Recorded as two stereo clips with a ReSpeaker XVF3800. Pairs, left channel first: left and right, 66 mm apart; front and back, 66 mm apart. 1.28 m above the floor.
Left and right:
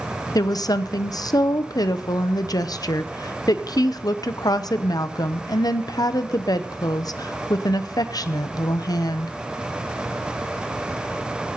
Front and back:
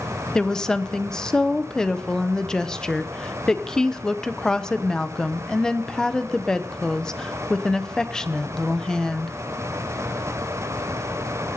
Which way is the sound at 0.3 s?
75° left.